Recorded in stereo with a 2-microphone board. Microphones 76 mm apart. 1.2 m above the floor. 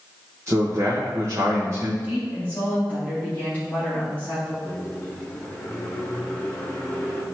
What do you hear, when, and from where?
0.5 s a man speaking: 40° right (ahead or behind), 1.3 m
2.0 s a woman speaking: 25° left (ahead or behind), 3 m
4.6 s a microwave: 20° left (ahead or behind), 1.6 m